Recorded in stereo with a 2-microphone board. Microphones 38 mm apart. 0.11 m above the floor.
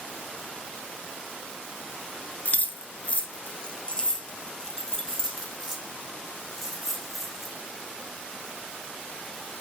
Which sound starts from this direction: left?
Keys jangling, at 2.5 s.